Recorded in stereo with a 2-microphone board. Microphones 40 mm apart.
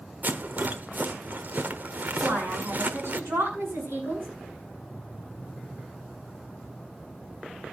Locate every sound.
0.2 s a rattle: 50° right (ahead or behind), 1.0 m
2.2 s a woman speaking: 80° right, 7.5 m